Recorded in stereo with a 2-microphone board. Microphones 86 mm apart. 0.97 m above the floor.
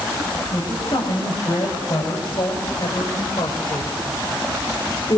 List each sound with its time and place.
0.5 s a woman speaking: 50° left (ahead or behind), 6.5 m; by 5.2 s 55° left (ahead or behind), 3 m